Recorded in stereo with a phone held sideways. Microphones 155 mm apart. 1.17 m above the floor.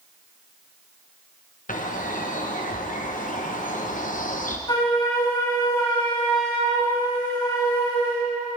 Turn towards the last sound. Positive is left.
turn(degrees=30)  # may be behind; listen again after turning